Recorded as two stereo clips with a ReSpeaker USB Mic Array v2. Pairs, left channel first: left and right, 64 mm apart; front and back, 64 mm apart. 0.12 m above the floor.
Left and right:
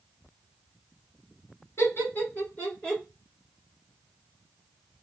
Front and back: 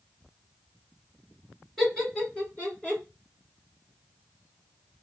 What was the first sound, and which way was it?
Laughter, 75° left.